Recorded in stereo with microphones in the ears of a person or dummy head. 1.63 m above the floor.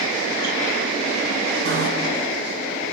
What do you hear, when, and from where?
1.6 s a bicycle bell: 80° right, 8.5 m